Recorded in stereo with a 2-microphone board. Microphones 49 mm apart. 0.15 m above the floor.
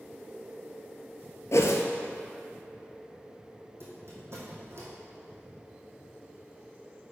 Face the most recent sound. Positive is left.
turn(degrees=-55)  # may be behind; listen again after turning